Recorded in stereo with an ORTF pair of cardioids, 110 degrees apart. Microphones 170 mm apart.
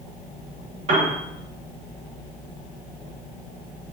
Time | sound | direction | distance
0.9 | a piano | 45° right | 1.3 m